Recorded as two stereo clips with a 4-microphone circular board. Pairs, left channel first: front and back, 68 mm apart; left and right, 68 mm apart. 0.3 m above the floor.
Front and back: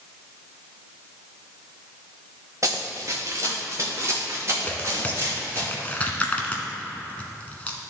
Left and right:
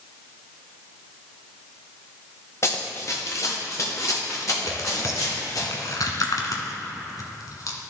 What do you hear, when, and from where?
2.6 s running footsteps: 140° left, 1.4 m; by 5.6 s 130° left, 4 m
4.6 s tearing paper: 70° left, 1.1 m